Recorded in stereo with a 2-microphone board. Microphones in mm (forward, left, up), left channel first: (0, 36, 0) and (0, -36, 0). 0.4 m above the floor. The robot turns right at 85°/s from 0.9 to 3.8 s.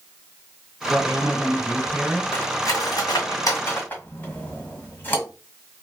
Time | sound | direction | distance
0.9 | a woman speaking | 90° right | 1.8 m
2.3 | cutlery clinking | 25° left (ahead or behind) | 1.6 m